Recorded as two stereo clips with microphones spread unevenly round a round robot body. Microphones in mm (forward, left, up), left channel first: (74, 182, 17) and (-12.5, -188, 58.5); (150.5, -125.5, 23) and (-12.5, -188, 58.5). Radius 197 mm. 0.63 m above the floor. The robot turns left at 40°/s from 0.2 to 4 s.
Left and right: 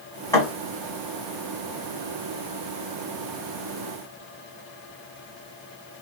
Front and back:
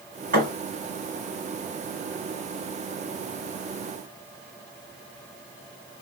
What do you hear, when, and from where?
0.3 s a thud: 160° left, 1.6 m; by 0.5 s 155° left, 1.6 m